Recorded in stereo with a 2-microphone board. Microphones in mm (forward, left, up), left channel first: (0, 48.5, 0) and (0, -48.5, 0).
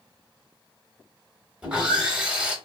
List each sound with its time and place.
1.6 s sawing: 10° right (ahead or behind), 1.0 m